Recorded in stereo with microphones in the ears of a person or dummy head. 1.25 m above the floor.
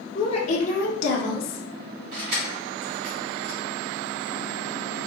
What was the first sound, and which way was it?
A woman speaking, 30° left (ahead or behind).